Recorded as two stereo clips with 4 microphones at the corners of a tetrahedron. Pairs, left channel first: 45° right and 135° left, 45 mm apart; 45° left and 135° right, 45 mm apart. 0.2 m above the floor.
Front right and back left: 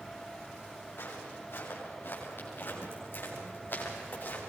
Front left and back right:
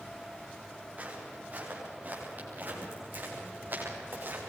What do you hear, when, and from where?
1.0 s footsteps: 80° right, 8 m; by 4.4 s 90° right, 8.5 m